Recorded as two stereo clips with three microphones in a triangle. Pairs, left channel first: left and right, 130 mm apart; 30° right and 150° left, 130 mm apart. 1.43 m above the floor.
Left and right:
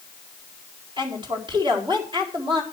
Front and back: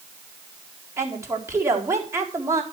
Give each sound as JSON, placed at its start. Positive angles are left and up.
{"t": 1.0, "sound": "a woman speaking", "azimuth_deg": -140, "distance_m": 4.0}